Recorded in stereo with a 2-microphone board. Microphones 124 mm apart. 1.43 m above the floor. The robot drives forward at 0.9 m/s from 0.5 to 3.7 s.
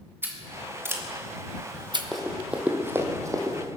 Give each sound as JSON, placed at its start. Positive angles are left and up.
{"t": 0.2, "sound": "scissors", "side_deg": -15, "distance_m": 2.0}
{"t": 2.1, "sound": "running footsteps", "side_deg": 0, "distance_m": 2.5}